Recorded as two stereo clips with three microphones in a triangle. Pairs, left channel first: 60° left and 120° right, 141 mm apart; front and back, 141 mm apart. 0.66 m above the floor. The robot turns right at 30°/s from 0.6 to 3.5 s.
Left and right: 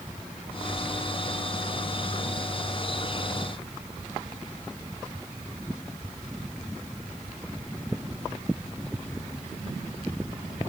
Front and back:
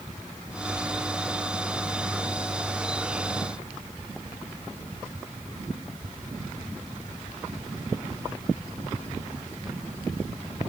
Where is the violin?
I don't hear a violin.